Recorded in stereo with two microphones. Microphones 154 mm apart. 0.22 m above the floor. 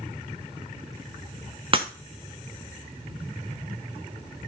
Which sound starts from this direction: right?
Breaking glass, at 1.7 s.